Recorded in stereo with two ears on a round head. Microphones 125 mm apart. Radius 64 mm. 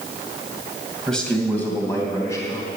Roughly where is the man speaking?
Centre.